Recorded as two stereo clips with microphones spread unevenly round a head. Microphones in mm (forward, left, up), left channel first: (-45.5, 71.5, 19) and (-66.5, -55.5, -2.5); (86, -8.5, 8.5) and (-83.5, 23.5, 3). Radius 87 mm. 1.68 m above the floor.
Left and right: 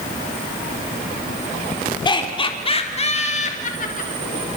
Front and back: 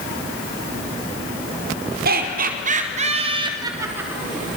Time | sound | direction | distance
2.0 | laughter | 130° left | 4.5 m